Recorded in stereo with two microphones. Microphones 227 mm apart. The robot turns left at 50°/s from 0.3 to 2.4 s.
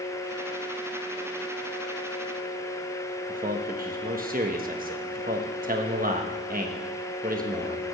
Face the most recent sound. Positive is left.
turn(degrees=-40)  # may be behind; listen again after turning